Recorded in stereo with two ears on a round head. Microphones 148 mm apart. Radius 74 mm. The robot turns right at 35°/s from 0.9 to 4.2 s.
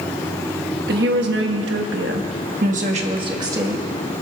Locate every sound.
0.9 s a woman speaking: 115° right, 1.3 m; by 3.9 s 10° right, 1.3 m